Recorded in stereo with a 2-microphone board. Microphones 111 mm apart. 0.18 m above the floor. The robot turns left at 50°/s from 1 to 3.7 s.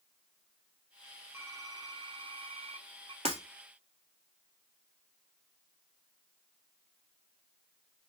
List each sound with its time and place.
1.3 s typing on a keyboard: 25° right, 0.5 m; by 3.1 s 115° right, 0.5 m
3.2 s breaking glass: 75° right (ahead or behind), 1.4 m; by 3.4 s 70° right (ahead or behind), 1.4 m